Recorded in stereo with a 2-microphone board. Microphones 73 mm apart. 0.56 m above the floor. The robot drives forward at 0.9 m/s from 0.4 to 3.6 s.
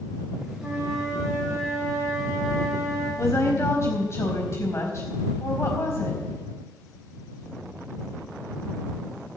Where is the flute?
5° right (ahead or behind), 6.5 m.